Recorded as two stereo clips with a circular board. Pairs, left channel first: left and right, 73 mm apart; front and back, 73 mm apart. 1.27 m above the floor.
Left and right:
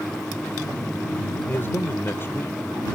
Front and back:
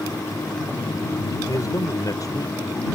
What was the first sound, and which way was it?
A man speaking, 35° left.